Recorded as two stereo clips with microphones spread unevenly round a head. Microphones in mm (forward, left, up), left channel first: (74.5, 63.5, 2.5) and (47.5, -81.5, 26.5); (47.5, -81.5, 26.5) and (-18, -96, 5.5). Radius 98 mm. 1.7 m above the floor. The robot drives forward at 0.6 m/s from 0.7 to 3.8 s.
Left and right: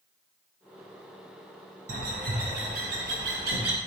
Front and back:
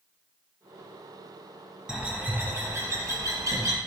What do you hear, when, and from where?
1.9 s a bird: 85° right, 1.1 m; by 3.8 s 135° right, 1.5 m